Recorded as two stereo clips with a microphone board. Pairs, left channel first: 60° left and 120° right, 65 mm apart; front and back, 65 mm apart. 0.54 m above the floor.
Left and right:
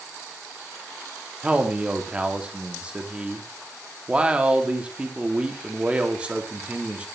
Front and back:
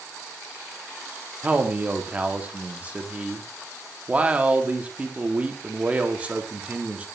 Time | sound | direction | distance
1.4 | a man speaking | 155° right | 0.8 m